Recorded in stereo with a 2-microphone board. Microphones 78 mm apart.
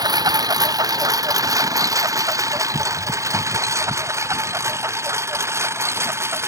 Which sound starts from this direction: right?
A lawn mower, at 0.0 s.